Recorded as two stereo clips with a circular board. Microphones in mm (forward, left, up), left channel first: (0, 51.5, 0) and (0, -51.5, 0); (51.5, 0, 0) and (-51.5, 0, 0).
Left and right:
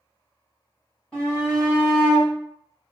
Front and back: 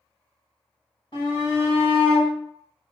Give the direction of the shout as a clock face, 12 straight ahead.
12 o'clock.